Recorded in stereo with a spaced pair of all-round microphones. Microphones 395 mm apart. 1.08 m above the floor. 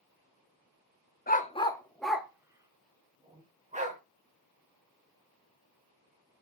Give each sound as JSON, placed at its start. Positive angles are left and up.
{"t": 1.3, "sound": "a dog barking", "side_deg": 25, "distance_m": 0.6}